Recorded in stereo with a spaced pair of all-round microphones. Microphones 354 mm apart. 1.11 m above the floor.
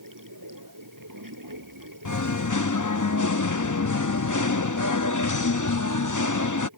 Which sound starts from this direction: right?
Running water, at 0.0 s.